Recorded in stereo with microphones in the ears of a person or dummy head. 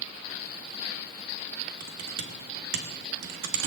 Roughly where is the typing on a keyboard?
Right.